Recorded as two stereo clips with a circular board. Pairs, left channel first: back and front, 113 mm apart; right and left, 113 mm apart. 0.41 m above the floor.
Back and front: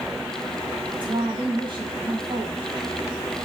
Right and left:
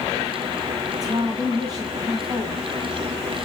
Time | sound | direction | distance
0.9 | a woman speaking | 40° left | 2 m